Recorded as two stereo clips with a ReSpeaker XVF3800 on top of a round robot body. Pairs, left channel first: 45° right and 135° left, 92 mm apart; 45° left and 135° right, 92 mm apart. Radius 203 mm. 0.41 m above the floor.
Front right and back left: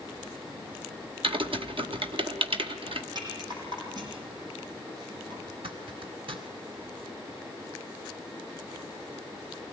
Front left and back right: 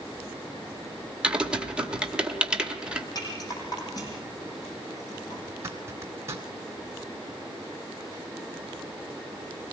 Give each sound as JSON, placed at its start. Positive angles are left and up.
{"t": 1.2, "sound": "typing on a keyboard", "azimuth_deg": 145, "distance_m": 1.9}
{"t": 3.1, "sound": "a rattle", "azimuth_deg": 95, "distance_m": 5.5}
{"t": 5.5, "sound": "a zipper", "azimuth_deg": 165, "distance_m": 1.9}